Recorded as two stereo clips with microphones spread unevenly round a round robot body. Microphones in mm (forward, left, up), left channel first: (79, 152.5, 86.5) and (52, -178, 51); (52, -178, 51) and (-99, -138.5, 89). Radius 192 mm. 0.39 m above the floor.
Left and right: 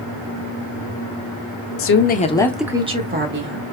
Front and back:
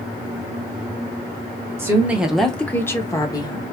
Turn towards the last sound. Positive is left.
turn(degrees=-60)